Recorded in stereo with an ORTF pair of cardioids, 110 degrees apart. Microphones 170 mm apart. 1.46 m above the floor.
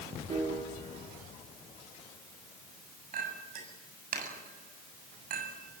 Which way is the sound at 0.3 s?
40° right.